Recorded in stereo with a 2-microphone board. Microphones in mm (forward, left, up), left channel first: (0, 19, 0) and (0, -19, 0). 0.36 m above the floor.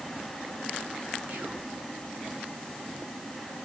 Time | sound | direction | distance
1.3 | whispering | 55° right (ahead or behind) | 3 m